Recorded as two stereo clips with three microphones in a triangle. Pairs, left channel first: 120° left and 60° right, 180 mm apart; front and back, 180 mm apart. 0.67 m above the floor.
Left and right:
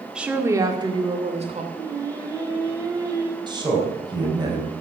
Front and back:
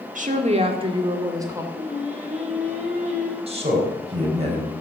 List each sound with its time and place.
0.1 s a woman speaking: 145° right, 1.7 m; by 1.6 s 105° right, 2.5 m
1.7 s singing: 130° right, 2.5 m
3.5 s a man speaking: 125° right, 4 m